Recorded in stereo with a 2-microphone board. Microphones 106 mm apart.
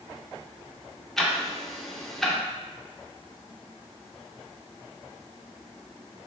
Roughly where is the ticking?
Centre.